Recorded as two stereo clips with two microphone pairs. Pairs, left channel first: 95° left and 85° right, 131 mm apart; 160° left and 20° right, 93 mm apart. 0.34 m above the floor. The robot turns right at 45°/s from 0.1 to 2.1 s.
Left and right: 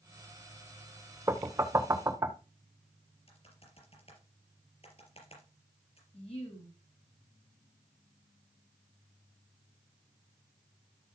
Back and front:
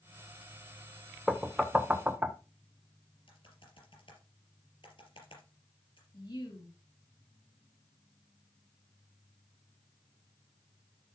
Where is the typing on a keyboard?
135° left, 4.5 m.